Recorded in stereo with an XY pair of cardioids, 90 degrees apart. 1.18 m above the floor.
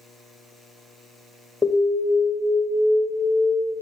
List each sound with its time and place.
1.6 s an alarm: 20° left, 1.9 m